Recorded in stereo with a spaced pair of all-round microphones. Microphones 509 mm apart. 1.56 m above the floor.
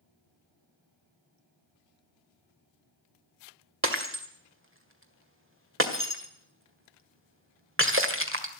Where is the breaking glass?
25° right (ahead or behind), 1.9 m.